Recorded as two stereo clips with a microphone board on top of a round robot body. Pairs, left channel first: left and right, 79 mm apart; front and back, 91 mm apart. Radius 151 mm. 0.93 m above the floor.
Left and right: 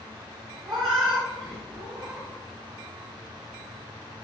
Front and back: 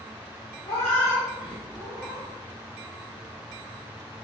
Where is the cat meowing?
55° right, 0.5 m; by 2.3 s 120° right, 1.2 m.